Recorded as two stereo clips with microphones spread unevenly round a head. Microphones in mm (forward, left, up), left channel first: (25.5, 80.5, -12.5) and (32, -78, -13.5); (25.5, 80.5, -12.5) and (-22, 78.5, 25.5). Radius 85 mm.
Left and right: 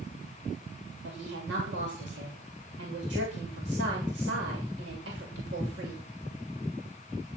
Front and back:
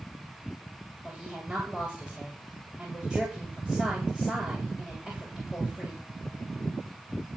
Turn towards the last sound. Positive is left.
turn(degrees=-90)